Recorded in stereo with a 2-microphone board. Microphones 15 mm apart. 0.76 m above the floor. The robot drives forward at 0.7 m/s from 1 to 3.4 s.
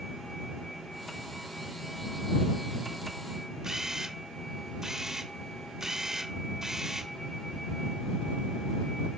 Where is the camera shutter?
40° right (ahead or behind), 0.9 m.